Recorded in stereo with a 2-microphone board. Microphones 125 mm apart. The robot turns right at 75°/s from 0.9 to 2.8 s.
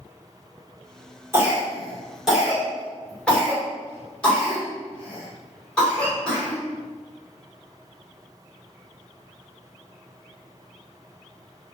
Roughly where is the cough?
Centre.